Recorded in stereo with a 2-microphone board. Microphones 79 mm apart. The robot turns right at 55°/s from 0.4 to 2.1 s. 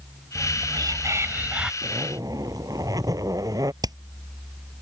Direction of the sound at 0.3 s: 80° right.